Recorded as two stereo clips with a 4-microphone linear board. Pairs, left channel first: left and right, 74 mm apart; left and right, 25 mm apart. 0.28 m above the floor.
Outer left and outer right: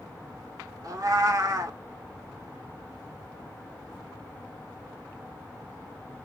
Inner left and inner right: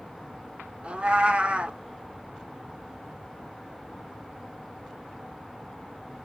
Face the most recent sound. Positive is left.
turn(degrees=-50)  # may be behind; listen again after turning